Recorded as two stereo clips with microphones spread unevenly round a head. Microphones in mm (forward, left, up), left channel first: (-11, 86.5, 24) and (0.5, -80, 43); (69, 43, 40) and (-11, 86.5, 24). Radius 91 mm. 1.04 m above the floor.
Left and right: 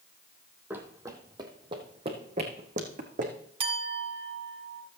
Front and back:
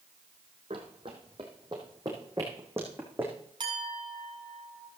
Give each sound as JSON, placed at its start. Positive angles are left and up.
{"t": 0.7, "sound": "running footsteps", "azimuth_deg": -160, "distance_m": 1.5}
{"t": 3.6, "sound": "a clink", "azimuth_deg": -145, "distance_m": 1.8}